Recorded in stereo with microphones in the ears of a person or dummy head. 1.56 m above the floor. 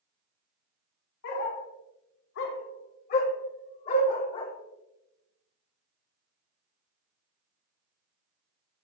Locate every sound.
1.2 s a dog barking: 60° left (ahead or behind), 1.9 m; by 4.5 s 25° left (ahead or behind), 1.6 m